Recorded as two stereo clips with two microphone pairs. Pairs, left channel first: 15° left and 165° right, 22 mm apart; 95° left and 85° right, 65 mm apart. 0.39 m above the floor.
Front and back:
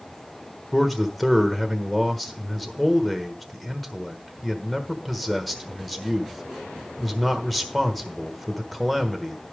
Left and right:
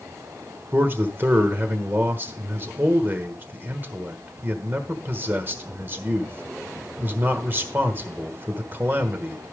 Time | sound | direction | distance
0.7 | a man speaking | 70° right | 1.2 m